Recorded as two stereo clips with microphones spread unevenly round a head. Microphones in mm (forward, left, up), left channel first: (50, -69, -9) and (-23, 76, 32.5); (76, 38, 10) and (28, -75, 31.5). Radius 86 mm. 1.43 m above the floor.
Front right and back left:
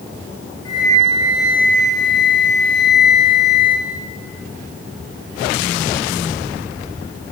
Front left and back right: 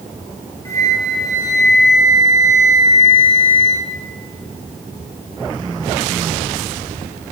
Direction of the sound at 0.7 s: Straight ahead.